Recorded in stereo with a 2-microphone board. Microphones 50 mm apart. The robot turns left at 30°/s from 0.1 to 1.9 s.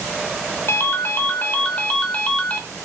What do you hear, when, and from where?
0.7 s a ringtone: 70° left, 0.7 m; by 2.6 s 35° left, 0.7 m